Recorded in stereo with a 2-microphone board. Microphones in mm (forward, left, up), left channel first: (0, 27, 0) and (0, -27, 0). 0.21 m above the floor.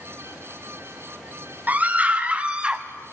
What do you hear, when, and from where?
1.7 s a scream: 30° right (ahead or behind), 1.5 m; by 2.8 s 15° right (ahead or behind), 1.1 m